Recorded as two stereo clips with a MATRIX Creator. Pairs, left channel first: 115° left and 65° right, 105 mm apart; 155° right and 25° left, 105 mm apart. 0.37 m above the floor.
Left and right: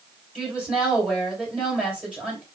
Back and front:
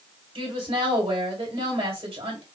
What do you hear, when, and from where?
0.3 s a woman speaking: 10° left, 2.5 m